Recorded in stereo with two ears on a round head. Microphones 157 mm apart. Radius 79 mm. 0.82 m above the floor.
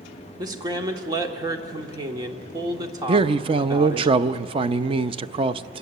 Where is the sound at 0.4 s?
20° right (ahead or behind), 1.7 m.